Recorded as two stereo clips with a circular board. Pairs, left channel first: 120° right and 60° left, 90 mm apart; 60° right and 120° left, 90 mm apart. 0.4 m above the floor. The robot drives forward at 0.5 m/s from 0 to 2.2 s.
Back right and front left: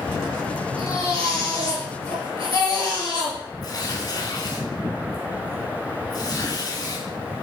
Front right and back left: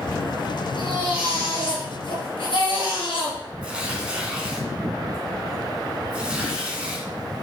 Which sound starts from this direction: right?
A baby crying, at 0.8 s.